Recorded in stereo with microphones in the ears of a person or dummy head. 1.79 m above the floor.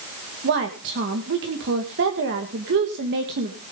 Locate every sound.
0.4 s a woman speaking: 65° right (ahead or behind), 2 m